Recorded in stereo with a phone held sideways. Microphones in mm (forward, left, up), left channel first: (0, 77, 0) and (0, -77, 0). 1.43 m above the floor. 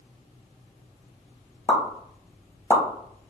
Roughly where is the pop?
Centre.